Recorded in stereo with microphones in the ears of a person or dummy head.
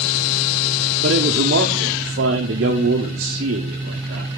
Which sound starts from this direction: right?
A man speaking, at 1.0 s.